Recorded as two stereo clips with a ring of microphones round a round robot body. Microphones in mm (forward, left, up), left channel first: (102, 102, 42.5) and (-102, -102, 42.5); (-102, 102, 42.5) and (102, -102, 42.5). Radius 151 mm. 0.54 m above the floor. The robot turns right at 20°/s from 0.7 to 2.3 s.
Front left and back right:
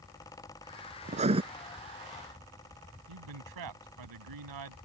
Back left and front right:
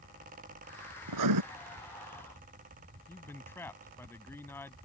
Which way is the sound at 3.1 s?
145° right.